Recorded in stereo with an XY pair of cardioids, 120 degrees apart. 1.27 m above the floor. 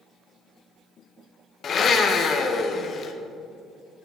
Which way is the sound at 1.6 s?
45° left.